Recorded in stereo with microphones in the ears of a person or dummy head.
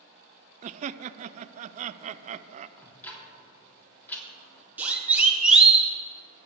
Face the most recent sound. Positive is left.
turn(degrees=-5)  # may be behind; listen again after turning